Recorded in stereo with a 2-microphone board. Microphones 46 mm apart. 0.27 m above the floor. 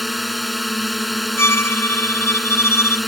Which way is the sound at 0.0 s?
Centre (ahead or behind).